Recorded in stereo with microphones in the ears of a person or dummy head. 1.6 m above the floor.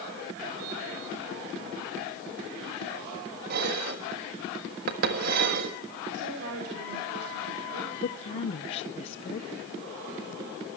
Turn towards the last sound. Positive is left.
turn(degrees=30)  # may be behind; listen again after turning